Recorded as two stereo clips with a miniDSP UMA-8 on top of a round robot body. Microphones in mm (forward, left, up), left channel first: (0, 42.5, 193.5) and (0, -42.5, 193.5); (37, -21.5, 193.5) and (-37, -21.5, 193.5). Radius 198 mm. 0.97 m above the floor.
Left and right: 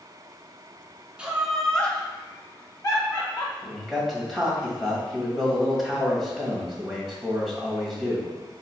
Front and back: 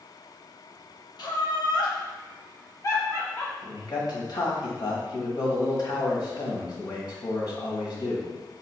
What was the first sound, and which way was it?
Laughter, 15° right.